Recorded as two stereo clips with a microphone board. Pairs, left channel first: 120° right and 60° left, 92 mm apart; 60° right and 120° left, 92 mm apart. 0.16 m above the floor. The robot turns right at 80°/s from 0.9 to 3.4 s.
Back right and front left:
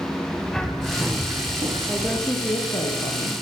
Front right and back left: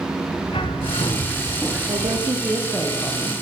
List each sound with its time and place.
0.5 s a bird: 30° right, 5.5 m; by 2.2 s 75° left, 5.5 m
1.9 s a woman speaking: 140° left, 10 m; by 3.3 s 105° right, 10 m